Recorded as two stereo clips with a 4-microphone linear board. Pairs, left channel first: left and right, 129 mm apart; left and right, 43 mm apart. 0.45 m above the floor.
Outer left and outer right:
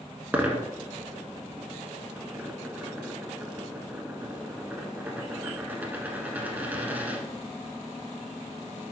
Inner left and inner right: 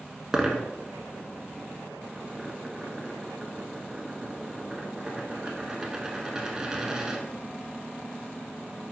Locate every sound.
0.3 s a dropped coin: 15° right (ahead or behind), 1.0 m